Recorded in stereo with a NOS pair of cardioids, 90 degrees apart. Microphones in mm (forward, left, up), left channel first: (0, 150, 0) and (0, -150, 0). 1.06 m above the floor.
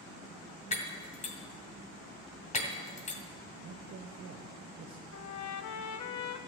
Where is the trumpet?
65° left, 1.0 m.